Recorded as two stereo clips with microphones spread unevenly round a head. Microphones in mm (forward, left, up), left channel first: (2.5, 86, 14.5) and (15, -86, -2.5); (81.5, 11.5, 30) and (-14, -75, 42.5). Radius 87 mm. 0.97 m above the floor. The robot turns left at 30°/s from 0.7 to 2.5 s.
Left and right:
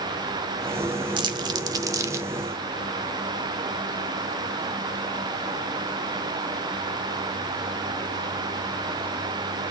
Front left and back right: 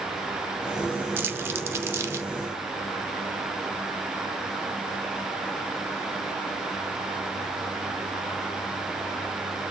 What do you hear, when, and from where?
1.2 s crumpling: 115° right, 0.6 m; by 2.3 s 150° right, 0.6 m